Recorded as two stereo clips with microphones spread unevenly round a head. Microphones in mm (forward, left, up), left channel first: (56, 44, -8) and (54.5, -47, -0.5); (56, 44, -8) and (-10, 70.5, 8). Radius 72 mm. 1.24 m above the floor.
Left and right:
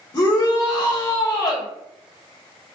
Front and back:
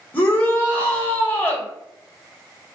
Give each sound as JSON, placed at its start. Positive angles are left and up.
{"t": 0.1, "sound": "a shout", "azimuth_deg": 40, "distance_m": 1.5}